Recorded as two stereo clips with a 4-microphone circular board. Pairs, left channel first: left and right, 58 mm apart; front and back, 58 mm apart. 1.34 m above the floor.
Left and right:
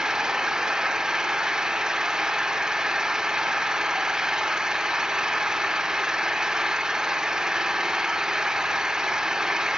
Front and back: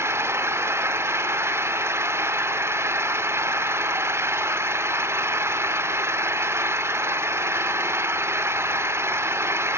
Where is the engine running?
165° right, 1.3 m.